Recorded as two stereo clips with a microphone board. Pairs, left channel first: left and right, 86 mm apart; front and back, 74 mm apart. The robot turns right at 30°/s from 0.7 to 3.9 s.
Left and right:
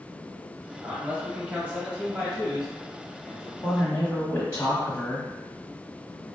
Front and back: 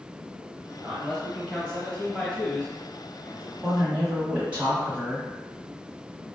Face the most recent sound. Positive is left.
turn(degrees=125)